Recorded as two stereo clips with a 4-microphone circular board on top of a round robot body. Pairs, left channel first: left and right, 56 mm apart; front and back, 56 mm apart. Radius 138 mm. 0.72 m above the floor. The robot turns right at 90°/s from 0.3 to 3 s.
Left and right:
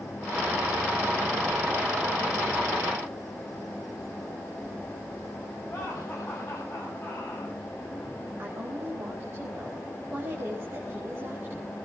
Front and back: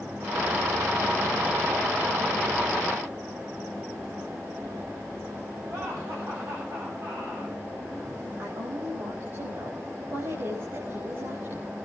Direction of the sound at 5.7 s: 145° left.